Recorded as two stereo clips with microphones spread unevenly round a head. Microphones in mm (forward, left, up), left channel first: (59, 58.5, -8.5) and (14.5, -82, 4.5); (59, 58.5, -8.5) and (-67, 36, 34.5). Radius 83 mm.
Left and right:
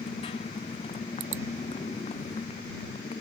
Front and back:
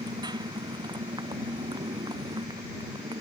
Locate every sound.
0.0 s a motorcycle: 135° left